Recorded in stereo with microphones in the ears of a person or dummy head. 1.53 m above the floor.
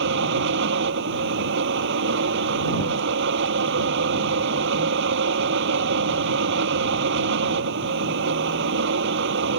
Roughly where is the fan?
Right.